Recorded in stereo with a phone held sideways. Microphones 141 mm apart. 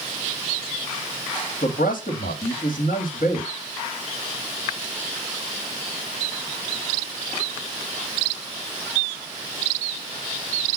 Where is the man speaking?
75° left (ahead or behind), 2 m.